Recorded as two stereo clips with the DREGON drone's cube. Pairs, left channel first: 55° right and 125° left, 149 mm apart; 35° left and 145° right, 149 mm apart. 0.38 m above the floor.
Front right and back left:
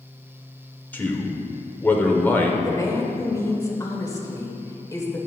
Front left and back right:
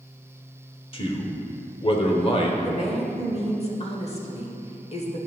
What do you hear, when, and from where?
0.9 s a man speaking: 15° left, 1.0 m
2.6 s a woman speaking: 5° left, 1.2 m